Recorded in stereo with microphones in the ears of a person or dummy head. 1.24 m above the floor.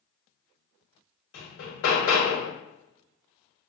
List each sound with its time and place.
1.3 s hammering: 80° left, 1.5 m